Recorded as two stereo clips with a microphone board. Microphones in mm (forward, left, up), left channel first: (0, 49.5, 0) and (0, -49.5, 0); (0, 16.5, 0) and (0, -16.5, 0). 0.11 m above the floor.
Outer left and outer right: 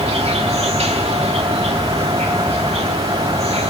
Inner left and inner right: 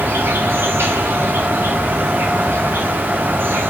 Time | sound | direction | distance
0.0 | an insect | 85° right | 3 m